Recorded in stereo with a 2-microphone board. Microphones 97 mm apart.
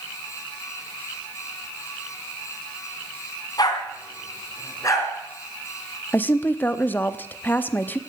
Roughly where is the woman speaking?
Centre.